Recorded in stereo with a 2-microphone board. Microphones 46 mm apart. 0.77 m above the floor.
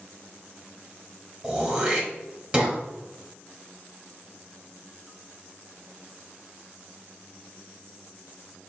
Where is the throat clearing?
20° right (ahead or behind), 1.4 m.